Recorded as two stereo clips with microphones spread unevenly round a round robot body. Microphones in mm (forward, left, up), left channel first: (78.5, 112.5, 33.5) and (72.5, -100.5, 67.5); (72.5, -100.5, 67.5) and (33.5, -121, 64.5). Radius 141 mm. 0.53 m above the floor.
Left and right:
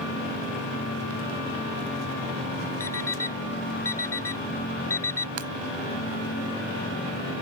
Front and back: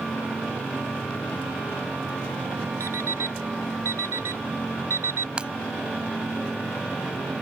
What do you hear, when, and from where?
2.8 s an alarm clock: 170° left
5.4 s breaking glass: 85° right